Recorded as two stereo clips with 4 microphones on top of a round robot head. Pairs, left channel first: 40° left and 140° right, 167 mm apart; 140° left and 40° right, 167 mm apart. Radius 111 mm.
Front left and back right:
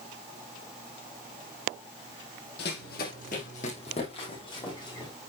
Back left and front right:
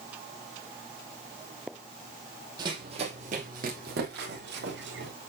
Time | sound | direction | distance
2.6 | running footsteps | 20° left | 2.5 m